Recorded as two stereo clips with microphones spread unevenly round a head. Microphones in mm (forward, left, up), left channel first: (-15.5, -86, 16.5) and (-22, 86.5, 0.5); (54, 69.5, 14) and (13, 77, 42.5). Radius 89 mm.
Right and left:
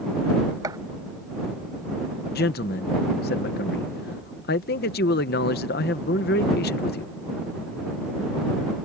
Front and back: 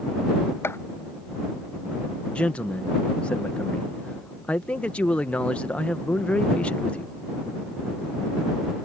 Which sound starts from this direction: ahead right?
A man speaking, at 2.4 s.